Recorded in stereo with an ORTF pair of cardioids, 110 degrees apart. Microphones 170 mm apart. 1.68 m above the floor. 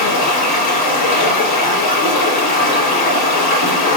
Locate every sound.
0.0 s running water: 70° left, 6.5 m